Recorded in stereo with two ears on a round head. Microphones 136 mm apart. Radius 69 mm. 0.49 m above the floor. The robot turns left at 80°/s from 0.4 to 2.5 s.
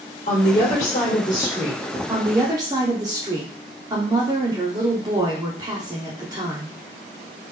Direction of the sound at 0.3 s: 110° left.